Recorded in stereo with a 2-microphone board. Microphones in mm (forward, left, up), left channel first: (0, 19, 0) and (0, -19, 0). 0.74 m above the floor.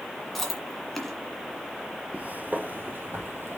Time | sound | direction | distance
0.3 | chewing | centre (ahead or behind) | 1.9 m
2.1 | footsteps | 40° right (ahead or behind) | 1.0 m